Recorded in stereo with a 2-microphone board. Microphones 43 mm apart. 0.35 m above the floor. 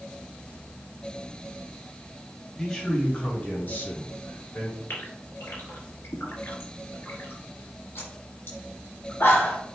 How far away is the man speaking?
About 2 m.